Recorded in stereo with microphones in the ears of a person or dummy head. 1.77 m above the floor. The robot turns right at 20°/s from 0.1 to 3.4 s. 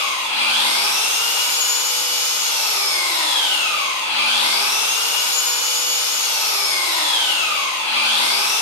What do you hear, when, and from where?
0.0 s an engine running: 100° right, 0.7 m; by 8.6 s 30° right, 0.7 m